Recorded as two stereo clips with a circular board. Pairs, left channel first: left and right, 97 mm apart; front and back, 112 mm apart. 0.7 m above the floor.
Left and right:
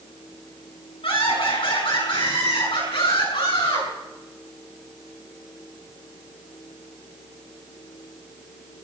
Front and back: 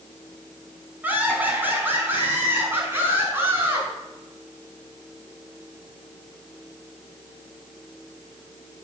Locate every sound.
1.0 s laughter: 105° left, 5.5 m; by 3.9 s 115° left, 7.5 m